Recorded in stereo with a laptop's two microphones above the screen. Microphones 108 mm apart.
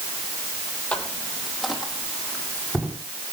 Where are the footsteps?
10° left (ahead or behind), 1.7 m; by 3.0 s 10° right (ahead or behind), 3 m.